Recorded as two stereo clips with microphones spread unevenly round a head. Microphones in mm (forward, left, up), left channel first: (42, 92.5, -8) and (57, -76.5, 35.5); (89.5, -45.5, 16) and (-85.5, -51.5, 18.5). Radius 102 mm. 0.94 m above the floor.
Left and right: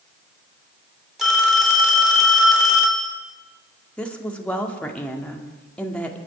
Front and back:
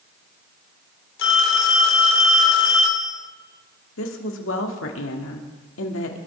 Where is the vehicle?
I don't hear a vehicle.